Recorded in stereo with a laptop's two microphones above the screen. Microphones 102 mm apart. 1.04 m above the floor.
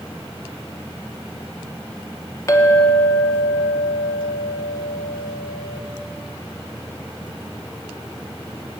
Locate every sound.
2.5 s a clink: 30° left (ahead or behind), 1.4 m